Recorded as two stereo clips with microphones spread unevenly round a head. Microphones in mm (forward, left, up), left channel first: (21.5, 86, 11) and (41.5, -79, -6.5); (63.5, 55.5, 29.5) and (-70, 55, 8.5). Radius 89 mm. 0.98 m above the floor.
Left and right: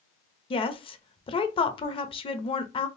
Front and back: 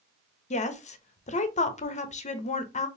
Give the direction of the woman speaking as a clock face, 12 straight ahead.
11 o'clock.